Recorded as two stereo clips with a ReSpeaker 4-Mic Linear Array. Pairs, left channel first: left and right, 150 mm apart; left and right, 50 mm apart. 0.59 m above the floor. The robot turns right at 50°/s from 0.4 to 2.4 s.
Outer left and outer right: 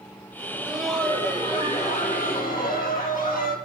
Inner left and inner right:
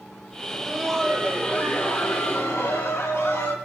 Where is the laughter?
25° right, 3.5 m; by 3.5 s 75° left, 3.5 m.